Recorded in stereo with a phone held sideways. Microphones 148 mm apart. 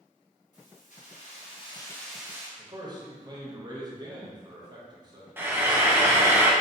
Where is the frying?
15° right (ahead or behind), 0.5 m.